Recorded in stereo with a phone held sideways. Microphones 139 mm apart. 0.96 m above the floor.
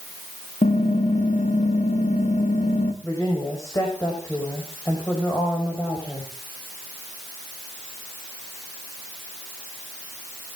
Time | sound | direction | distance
0.6 | typing on a keyboard | 60° left (ahead or behind) | 1.6 m
3.0 | a woman speaking | 25° left (ahead or behind) | 5 m